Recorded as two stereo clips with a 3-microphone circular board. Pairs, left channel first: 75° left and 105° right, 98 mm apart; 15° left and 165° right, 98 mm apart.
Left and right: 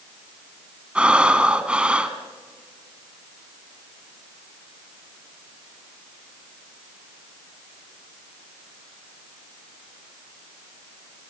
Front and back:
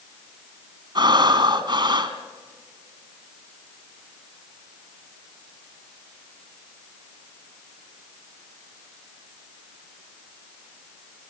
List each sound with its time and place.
0.9 s breathing: straight behind, 1.5 m